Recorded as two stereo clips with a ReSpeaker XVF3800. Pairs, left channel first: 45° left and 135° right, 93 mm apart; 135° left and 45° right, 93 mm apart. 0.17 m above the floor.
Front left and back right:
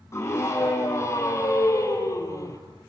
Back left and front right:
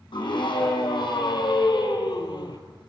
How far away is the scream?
About 6 m.